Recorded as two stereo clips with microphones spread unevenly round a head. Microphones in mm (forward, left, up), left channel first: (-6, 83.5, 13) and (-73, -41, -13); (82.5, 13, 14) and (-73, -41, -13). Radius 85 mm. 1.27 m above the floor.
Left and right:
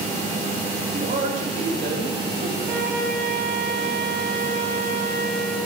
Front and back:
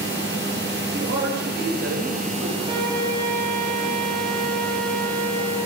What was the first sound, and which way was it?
A woman speaking, 145° right.